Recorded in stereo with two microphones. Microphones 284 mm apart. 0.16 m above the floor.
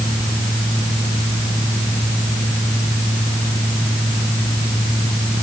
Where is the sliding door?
I don't hear a sliding door.